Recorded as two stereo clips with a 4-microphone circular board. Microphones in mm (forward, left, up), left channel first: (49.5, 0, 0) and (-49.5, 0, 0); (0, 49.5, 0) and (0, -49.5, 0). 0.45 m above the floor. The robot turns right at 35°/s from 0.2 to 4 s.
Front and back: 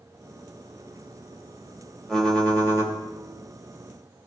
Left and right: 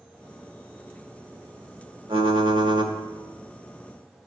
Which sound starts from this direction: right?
Typing on a keyboard, at 2.1 s.